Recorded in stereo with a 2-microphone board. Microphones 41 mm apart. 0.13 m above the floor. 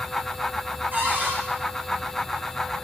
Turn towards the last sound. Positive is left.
turn(degrees=-45)  # may be behind; listen again after turning